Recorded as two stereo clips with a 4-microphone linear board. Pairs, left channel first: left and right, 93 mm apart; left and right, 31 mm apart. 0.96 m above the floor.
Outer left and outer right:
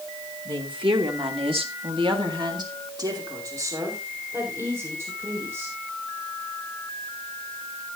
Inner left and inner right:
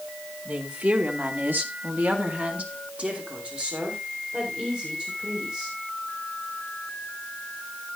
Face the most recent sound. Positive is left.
turn(degrees=-20)  # may be behind; listen again after turning